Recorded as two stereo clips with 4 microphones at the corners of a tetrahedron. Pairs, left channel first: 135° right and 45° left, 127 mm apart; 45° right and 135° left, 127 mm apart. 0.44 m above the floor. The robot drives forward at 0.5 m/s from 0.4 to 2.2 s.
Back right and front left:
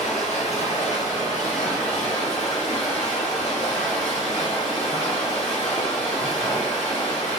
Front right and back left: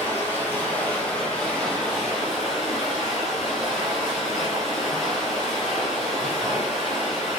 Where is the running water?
115° right, 2.0 m; by 7.4 s 135° right, 2.5 m.